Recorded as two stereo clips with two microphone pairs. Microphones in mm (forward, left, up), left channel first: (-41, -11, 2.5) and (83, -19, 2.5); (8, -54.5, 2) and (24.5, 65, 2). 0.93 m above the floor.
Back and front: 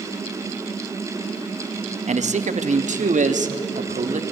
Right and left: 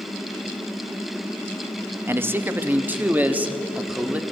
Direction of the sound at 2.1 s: 10° left.